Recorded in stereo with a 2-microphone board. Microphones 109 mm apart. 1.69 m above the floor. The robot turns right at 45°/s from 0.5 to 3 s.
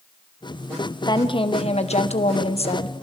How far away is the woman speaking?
About 1.5 m.